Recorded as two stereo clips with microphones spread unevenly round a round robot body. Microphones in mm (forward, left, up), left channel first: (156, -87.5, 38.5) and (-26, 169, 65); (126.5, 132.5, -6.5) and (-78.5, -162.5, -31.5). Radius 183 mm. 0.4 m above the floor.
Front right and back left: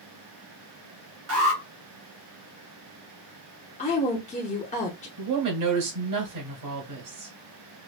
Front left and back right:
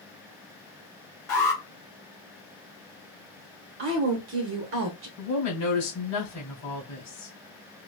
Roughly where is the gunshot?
No gunshot in this recording.